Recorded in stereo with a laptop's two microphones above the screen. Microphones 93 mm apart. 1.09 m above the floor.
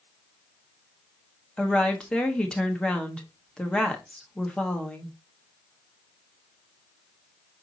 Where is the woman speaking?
10° left (ahead or behind), 1.3 m.